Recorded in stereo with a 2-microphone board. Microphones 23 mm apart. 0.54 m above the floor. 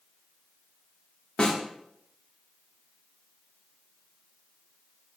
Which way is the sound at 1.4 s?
35° left (ahead or behind).